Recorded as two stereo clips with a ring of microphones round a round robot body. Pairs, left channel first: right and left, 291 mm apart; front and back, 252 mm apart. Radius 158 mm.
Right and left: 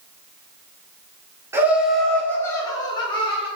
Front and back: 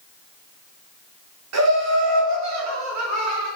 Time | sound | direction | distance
1.5 | laughter | 170° left | 2.5 m